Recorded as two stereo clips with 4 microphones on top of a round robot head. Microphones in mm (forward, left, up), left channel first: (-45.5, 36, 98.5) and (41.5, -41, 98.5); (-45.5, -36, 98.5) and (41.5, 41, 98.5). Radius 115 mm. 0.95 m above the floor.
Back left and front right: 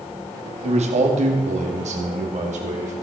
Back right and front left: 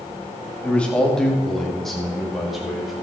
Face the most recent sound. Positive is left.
turn(degrees=-45)